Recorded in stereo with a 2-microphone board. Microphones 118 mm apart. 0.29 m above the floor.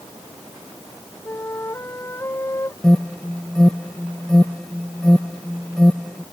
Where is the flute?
20° left (ahead or behind).